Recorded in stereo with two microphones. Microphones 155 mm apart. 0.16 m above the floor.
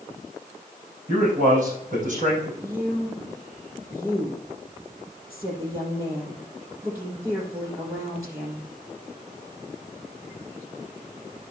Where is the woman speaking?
20° right (ahead or behind), 4.5 m.